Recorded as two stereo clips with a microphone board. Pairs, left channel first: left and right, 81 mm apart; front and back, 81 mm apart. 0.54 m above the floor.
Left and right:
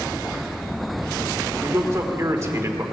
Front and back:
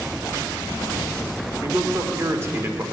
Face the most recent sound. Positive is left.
turn(degrees=-135)